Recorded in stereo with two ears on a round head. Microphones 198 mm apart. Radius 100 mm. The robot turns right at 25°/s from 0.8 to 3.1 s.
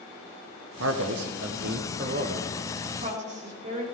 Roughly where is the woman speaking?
Right.